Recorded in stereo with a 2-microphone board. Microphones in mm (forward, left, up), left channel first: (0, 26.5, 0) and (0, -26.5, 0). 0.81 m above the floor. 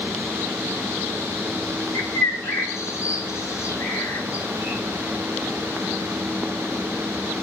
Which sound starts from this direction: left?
A bird, at 1.9 s.